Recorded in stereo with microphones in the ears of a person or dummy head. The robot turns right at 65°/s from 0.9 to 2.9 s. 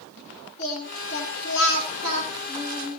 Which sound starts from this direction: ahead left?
Singing, at 0.6 s.